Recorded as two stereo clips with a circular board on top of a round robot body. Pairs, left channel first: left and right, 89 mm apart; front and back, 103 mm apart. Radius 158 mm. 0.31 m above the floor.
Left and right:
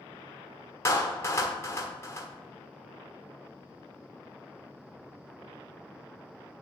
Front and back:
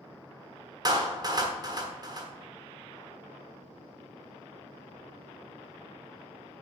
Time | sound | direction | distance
0.8 | a clap | 140° left | 1.6 m